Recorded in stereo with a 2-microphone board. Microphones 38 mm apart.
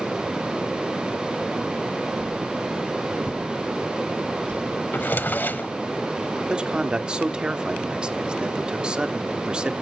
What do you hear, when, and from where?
2.2 s a whoosh: 45° left (ahead or behind), 5.5 m
4.9 s a drawer: 55° left (ahead or behind), 0.8 m
6.5 s a man speaking: 25° right (ahead or behind), 1.1 m